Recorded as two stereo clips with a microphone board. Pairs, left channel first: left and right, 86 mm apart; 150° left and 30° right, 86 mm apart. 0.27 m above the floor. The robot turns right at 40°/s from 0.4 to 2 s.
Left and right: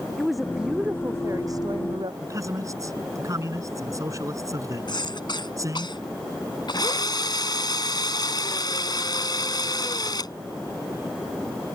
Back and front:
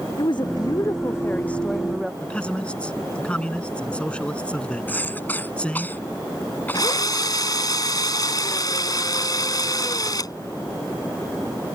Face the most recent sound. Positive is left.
turn(degrees=115)